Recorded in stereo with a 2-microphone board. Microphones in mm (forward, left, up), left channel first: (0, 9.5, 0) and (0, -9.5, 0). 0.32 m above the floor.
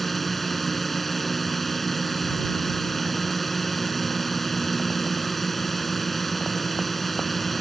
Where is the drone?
5° left (ahead or behind).